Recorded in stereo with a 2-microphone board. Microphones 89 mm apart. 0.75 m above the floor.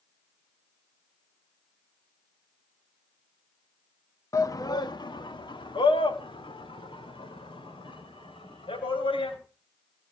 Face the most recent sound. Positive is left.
turn(degrees=80)